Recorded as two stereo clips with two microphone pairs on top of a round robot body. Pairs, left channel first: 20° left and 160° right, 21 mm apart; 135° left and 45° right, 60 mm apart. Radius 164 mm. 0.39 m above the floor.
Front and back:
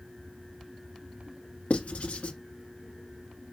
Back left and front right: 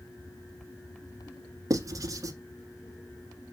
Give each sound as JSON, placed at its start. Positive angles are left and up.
{"t": 1.7, "sound": "writing", "azimuth_deg": -10, "distance_m": 1.3}